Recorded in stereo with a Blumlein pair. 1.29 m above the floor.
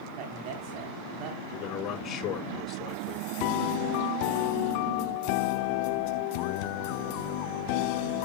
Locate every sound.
0.2 s a man speaking: 40° right, 3.5 m
1.5 s a man speaking: 25° left, 4.5 m